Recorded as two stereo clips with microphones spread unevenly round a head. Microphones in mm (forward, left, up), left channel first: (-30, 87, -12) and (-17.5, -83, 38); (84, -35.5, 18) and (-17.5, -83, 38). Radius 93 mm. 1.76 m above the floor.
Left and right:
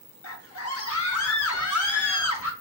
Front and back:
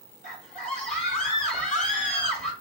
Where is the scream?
80° left, 0.8 m.